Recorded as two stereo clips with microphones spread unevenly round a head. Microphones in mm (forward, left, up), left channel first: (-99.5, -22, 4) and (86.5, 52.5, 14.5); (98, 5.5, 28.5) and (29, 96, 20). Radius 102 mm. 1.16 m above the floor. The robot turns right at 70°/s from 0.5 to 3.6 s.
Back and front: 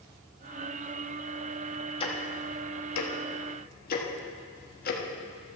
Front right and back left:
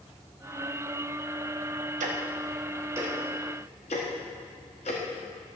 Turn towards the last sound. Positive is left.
turn(degrees=-110)